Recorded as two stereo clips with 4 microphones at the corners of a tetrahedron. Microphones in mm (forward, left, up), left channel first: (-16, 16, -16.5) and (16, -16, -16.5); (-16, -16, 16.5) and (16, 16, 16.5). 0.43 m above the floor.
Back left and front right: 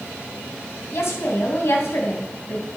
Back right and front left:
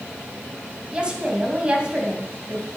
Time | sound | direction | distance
0.9 | a woman speaking | 115° left | 3 m